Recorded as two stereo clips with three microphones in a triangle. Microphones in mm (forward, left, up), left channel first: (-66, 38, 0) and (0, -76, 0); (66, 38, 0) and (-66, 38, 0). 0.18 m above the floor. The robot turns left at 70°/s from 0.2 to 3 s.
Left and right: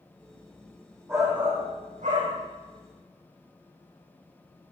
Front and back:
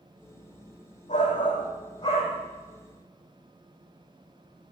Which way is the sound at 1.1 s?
10° left.